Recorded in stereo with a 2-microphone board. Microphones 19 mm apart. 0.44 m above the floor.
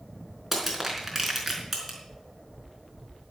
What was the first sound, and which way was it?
Crushing, 10° right (ahead or behind).